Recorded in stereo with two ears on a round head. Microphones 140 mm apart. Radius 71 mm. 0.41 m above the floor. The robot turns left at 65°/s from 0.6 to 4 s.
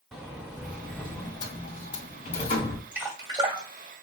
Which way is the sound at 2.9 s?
10° right (ahead or behind).